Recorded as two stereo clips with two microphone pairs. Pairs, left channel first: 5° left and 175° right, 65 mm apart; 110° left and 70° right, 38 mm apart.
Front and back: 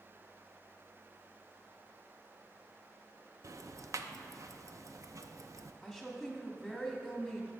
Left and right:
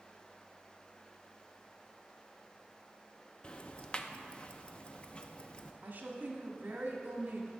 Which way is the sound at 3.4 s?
165° left.